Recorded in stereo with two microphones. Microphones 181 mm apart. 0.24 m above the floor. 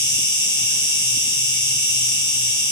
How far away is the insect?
About 1.0 m.